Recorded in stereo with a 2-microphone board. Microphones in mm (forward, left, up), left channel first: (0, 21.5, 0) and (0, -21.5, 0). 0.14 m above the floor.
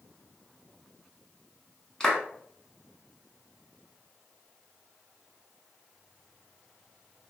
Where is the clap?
15° left (ahead or behind), 0.8 m.